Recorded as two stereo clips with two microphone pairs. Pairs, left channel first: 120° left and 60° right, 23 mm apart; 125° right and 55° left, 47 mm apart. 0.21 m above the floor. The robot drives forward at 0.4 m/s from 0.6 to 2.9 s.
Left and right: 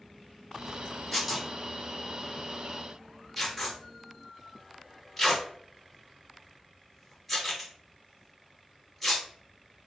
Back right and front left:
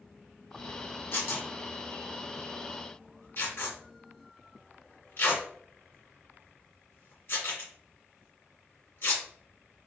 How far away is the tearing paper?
About 2.5 m.